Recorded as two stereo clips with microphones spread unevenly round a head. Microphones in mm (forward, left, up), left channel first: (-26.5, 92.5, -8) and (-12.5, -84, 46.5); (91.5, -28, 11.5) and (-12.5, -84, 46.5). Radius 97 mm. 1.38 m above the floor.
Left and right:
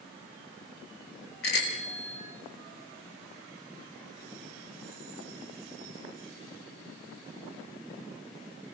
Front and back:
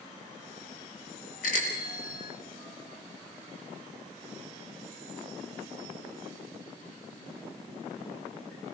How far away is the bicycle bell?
About 5 m.